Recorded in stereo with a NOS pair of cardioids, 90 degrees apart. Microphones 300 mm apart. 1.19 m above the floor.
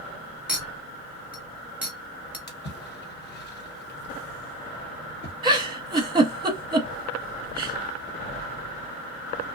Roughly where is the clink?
Ahead.